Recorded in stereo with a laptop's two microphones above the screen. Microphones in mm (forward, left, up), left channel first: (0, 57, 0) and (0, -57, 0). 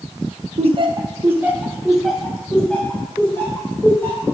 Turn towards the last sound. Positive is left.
turn(degrees=20)  # may be behind; listen again after turning